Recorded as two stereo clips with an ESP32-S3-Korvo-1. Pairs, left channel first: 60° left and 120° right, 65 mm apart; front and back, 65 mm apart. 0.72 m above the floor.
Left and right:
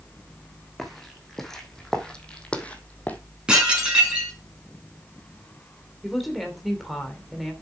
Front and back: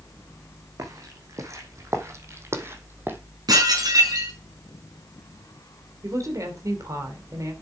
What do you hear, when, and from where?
0.8 s footsteps: 150° left, 2.5 m; by 3.2 s 125° left, 1.9 m
3.5 s dishes clattering: 165° left, 5.5 m
6.0 s a woman speaking: 150° left, 3 m